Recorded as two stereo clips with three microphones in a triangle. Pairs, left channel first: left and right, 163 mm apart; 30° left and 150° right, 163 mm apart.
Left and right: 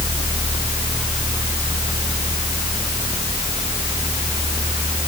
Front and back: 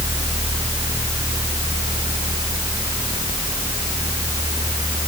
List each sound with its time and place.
Only background noise.